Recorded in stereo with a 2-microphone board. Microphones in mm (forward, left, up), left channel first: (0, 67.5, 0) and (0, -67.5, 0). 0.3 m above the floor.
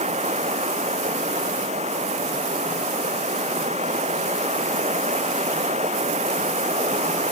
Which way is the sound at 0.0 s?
55° right (ahead or behind).